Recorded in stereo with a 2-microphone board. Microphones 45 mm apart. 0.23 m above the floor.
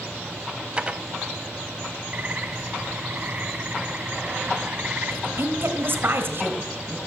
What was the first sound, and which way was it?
Dishes clattering, 25° right (ahead or behind).